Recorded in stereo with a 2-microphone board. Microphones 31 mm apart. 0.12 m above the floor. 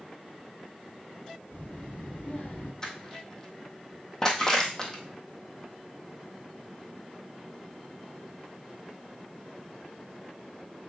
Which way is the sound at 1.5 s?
65° left (ahead or behind).